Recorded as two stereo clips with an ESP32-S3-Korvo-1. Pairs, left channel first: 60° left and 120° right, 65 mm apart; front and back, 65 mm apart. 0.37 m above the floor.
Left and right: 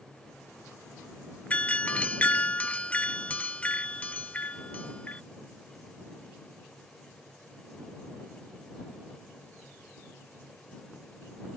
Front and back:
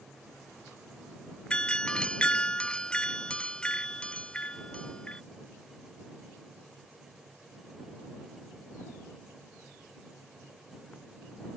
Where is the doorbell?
45° left.